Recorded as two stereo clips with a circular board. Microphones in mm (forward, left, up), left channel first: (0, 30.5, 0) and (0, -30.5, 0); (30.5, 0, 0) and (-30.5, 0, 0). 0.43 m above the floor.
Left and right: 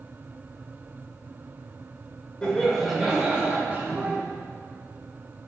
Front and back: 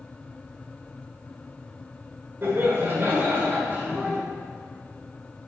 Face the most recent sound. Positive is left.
turn(degrees=-130)